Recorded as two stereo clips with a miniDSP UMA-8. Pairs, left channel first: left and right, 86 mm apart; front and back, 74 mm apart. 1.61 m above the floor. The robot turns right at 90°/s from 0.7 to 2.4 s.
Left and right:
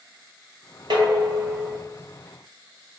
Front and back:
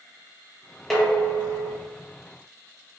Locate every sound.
0.9 s dishes clattering: 85° right, 1.2 m; by 1.8 s 5° right, 1.2 m